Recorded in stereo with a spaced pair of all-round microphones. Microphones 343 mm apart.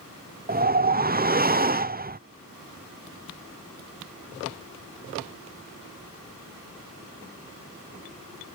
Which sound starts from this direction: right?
A whoosh, at 0.5 s.